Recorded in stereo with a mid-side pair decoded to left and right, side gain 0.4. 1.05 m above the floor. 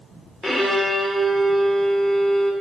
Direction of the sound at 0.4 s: 10° left.